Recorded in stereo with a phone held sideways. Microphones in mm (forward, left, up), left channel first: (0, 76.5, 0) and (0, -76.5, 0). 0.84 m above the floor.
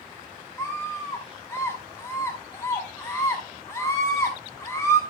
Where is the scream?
20° left (ahead or behind), 6 m.